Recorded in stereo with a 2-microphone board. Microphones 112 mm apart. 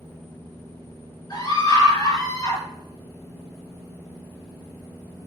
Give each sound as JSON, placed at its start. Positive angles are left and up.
{"t": 1.3, "sound": "a scream", "side_deg": 40, "distance_m": 5.5}